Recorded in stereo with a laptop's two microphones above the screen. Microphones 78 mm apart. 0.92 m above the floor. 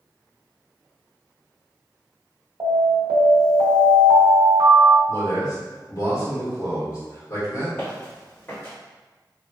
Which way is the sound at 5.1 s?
50° left (ahead or behind).